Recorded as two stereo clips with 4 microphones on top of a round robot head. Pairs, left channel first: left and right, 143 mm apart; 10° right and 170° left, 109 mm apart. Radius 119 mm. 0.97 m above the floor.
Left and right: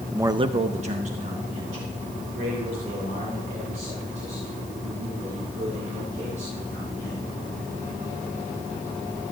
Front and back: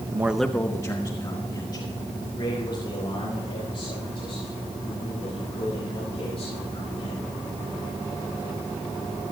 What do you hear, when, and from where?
0.1 s a man speaking: 165° right, 0.7 m; by 7.3 s 50° right, 11 m